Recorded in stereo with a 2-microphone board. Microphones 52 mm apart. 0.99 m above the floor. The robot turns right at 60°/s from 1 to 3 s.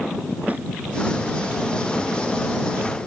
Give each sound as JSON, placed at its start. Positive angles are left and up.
{"t": 0.5, "sound": "a snare drum", "side_deg": -35}